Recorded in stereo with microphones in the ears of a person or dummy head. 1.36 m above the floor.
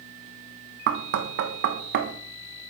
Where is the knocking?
60° right (ahead or behind), 0.9 m.